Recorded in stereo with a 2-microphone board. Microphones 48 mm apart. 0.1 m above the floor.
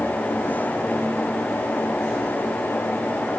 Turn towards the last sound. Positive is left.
No sound to turn to.